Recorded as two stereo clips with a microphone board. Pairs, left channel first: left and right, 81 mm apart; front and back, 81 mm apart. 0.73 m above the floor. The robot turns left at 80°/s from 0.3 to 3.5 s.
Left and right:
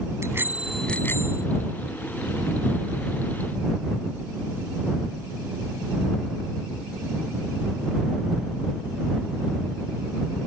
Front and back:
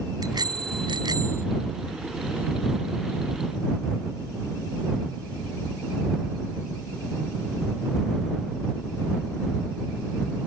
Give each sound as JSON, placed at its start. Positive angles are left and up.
{"t": 0.2, "sound": "a bicycle bell", "azimuth_deg": -145}